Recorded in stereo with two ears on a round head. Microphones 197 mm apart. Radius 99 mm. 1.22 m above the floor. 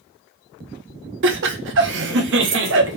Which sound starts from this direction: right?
Laughter, at 1.2 s.